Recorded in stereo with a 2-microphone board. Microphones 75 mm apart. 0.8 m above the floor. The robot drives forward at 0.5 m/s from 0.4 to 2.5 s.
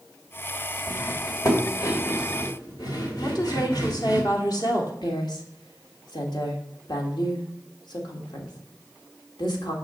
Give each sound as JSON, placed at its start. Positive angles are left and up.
{"t": 0.9, "sound": "cutlery clinking", "side_deg": 40, "distance_m": 2.0}
{"t": 3.2, "sound": "a woman speaking", "side_deg": 60, "distance_m": 1.9}
{"t": 5.0, "sound": "a woman speaking", "side_deg": 70, "distance_m": 1.8}